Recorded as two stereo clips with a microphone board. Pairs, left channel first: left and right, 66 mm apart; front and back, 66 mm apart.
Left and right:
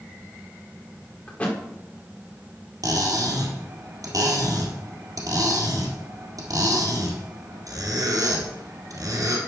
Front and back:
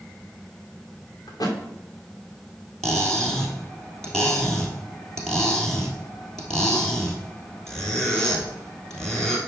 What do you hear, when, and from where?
1.3 s a thud: 25° left, 2.5 m
2.8 s cutlery clinking: 80° right, 2.5 m